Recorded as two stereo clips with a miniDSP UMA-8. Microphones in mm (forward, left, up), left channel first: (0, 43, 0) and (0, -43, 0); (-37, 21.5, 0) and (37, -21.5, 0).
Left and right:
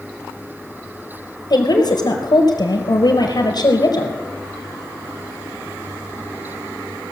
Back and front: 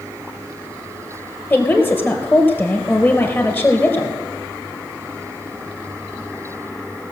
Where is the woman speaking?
90° left, 2.5 m.